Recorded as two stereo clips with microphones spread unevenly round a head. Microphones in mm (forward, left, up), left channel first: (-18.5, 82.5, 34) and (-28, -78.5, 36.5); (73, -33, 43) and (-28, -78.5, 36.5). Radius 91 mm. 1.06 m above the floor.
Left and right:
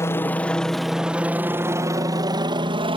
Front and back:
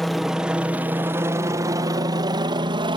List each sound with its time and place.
0.0 s a helicopter: 120° left; by 3.0 s 140° right